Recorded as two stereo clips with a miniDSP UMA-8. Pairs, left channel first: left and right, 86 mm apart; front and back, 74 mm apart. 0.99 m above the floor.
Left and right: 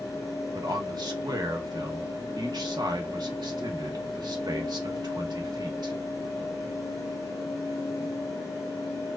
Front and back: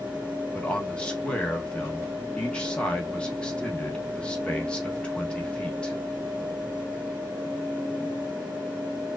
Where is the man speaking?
75° right, 1.2 m.